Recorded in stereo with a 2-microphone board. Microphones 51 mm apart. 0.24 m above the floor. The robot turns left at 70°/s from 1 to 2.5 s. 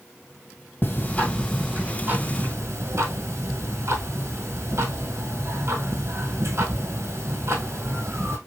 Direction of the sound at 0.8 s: 40° left.